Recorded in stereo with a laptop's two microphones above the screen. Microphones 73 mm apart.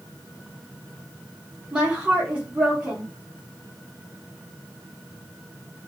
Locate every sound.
1.7 s a woman speaking: 15° right (ahead or behind), 0.8 m